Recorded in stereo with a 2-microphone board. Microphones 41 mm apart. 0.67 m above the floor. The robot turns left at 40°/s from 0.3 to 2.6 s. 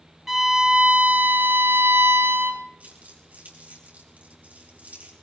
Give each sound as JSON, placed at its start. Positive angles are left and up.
{"t": 0.3, "sound": "a violin", "azimuth_deg": -10, "distance_m": 1.2}
{"t": 2.8, "sound": "crumpling", "side_deg": -45, "distance_m": 3.5}